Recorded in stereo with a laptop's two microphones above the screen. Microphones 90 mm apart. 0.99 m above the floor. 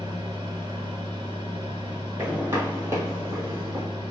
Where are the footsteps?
20° right (ahead or behind), 1.5 m; by 3.9 s 40° right (ahead or behind), 1.3 m.